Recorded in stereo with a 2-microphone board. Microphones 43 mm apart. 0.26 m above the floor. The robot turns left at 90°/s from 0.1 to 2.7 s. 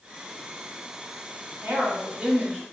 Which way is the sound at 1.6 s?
85° right.